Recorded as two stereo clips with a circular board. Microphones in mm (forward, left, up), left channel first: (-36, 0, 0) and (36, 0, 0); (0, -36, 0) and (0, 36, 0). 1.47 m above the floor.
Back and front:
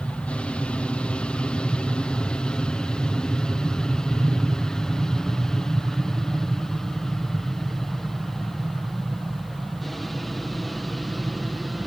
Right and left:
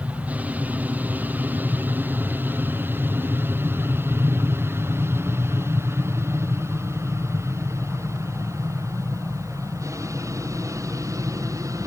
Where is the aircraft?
125° left; by 11.9 s 90° left.